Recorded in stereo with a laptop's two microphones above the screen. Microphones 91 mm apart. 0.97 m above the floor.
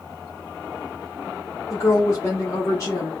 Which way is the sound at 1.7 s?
35° left (ahead or behind).